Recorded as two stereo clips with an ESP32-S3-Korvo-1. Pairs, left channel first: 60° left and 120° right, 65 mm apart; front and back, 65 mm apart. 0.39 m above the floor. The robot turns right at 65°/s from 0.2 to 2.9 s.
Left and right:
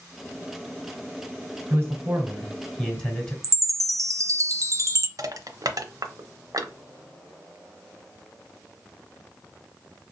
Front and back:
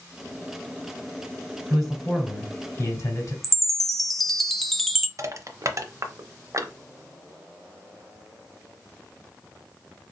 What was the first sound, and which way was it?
A man speaking, 95° right.